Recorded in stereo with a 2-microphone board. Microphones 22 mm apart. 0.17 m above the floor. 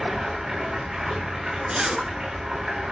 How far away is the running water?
About 4 m.